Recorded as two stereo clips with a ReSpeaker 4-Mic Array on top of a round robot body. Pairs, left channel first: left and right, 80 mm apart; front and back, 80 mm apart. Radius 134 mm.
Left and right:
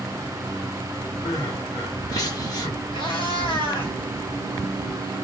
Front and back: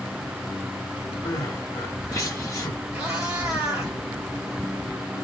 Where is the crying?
50° left, 1.3 m.